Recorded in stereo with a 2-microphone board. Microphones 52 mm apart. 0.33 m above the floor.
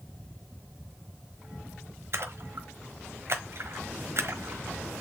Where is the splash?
55° right (ahead or behind), 1.3 m.